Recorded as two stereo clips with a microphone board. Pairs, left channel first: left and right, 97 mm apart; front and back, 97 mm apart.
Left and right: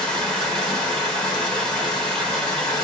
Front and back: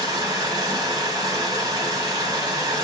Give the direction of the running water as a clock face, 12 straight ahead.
6 o'clock.